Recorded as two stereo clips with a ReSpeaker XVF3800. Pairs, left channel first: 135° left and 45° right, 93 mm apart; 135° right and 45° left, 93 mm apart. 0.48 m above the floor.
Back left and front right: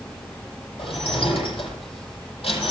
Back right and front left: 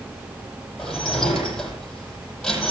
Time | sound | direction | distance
0.8 | dishes clattering | 140° left | 9.5 m